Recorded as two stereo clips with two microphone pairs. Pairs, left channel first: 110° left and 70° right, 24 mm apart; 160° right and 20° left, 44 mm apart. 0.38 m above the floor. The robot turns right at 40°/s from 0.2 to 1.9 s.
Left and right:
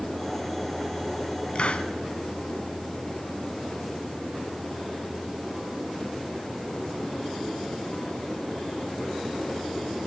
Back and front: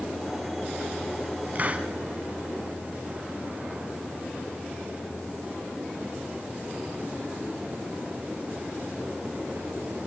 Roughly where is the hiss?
Left.